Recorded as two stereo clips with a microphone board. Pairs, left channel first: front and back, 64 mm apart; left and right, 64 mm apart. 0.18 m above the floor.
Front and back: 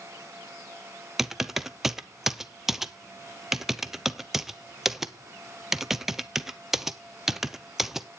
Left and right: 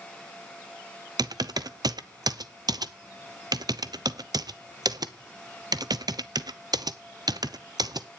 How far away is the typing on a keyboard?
About 0.6 m.